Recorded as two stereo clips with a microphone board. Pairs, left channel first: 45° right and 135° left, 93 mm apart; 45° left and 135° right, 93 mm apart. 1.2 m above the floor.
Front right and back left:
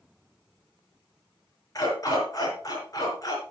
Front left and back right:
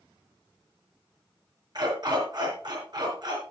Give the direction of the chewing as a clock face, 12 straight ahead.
I don't hear chewing.